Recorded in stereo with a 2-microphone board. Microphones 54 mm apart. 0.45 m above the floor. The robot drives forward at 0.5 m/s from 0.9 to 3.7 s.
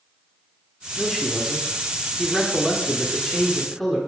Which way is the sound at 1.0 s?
5° left (ahead or behind).